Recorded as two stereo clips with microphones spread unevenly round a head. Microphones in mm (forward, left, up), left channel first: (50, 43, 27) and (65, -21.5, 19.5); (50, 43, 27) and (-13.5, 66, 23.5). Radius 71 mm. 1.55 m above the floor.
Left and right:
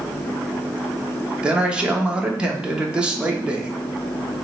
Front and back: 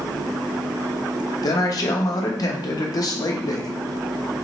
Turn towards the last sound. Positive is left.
turn(degrees=0)